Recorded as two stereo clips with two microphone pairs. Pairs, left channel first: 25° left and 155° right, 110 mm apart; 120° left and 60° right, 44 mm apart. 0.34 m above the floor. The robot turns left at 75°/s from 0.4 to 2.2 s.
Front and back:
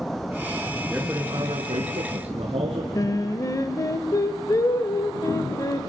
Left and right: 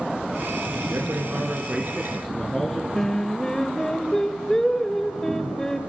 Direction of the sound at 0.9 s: 75° right.